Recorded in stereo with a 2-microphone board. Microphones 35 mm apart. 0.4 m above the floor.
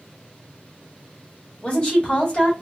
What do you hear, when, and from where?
1.6 s a woman speaking: 35° left (ahead or behind), 1.3 m